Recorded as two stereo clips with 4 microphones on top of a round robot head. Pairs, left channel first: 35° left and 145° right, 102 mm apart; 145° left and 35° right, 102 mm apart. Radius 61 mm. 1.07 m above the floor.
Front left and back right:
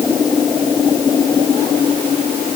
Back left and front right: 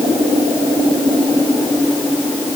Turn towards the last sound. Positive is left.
No sound to turn to.